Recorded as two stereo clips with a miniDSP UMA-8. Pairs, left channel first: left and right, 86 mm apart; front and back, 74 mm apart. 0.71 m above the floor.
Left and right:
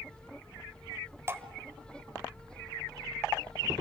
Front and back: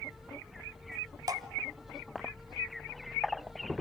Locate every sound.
1.3 s dripping: 150° right, 1.1 m